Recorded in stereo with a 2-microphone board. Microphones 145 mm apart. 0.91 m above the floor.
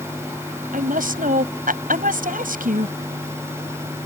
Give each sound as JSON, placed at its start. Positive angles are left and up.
{"t": 0.7, "sound": "a woman speaking", "side_deg": -75}